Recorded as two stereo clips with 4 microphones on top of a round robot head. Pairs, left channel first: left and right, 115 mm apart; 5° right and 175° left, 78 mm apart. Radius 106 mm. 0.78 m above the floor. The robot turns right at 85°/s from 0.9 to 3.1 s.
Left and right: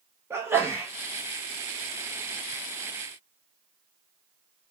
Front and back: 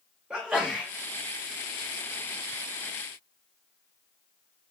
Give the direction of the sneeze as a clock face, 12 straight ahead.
4 o'clock.